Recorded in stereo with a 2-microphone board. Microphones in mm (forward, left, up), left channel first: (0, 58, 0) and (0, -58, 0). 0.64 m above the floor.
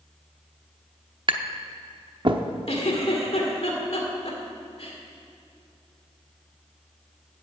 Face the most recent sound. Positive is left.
turn(degrees=65)  # may be behind; listen again after turning